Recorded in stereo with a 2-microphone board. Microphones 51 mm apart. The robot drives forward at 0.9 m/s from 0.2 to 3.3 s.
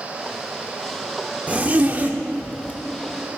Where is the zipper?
30° right (ahead or behind), 1.1 m.